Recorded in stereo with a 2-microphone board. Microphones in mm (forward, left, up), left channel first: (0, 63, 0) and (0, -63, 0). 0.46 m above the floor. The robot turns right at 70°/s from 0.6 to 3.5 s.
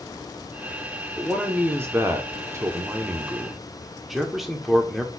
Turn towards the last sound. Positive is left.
turn(degrees=0)  # may be behind; listen again after turning